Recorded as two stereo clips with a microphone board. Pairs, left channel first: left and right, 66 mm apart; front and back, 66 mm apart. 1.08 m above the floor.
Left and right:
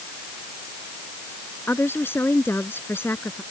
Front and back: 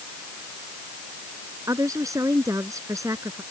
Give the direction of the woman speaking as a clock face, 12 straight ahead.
7 o'clock.